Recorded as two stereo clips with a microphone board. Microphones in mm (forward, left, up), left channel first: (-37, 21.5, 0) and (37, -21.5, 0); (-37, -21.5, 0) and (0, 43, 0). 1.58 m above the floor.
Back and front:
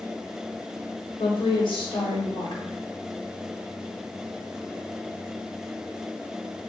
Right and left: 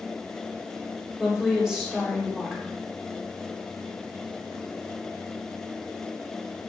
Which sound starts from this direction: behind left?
A woman speaking, at 1.2 s.